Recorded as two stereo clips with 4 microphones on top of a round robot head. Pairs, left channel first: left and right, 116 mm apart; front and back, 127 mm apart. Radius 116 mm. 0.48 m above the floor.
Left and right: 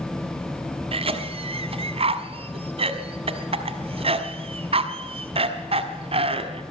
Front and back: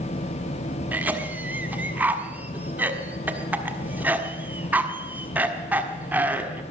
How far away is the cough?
About 1.5 m.